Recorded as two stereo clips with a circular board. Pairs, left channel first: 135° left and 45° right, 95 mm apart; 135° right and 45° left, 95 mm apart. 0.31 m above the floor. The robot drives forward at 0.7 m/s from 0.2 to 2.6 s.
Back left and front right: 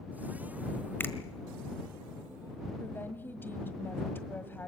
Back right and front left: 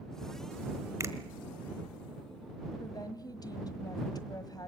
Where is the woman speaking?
165° right, 1.5 m.